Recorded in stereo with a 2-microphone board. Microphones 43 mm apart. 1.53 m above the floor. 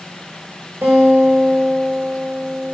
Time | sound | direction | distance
0.8 | a guitar | 80° right | 4.5 m